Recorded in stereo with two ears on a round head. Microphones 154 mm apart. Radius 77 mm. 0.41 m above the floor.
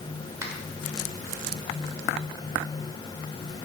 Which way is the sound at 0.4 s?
20° right (ahead or behind).